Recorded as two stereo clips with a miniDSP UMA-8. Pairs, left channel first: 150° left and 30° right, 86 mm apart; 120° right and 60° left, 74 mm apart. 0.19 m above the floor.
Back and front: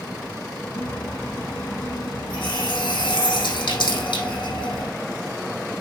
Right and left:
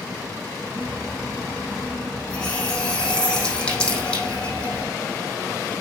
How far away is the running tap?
About 5 m.